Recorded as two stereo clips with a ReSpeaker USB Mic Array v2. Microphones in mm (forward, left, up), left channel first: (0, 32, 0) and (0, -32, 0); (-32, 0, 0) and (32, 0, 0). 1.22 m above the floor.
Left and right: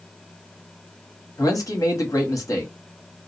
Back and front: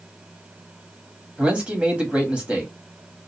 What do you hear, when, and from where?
1.4 s a man speaking: 70° left, 1.2 m